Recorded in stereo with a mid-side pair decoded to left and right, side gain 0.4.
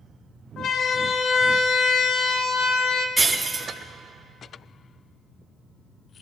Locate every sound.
0.6 s a siren: 70° left, 3 m
3.2 s breaking glass: 35° right, 2.5 m